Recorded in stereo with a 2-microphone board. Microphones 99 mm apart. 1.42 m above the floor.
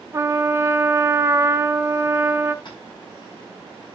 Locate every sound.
0.1 s a trumpet: 30° right (ahead or behind), 0.9 m
2.6 s tapping: 50° left (ahead or behind), 6.5 m